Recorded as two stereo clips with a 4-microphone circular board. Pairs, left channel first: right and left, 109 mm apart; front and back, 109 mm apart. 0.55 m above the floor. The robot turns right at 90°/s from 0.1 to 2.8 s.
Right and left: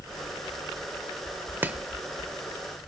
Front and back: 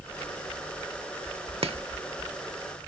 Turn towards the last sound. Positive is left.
turn(degrees=-95)